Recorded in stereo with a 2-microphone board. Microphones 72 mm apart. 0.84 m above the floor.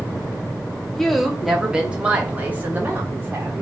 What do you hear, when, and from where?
0.9 s a woman speaking: 5° left (ahead or behind), 2 m; by 3.6 s 35° right (ahead or behind), 3 m